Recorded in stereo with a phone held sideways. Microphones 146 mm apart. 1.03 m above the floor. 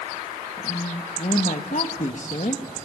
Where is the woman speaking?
55° left (ahead or behind), 1.4 m.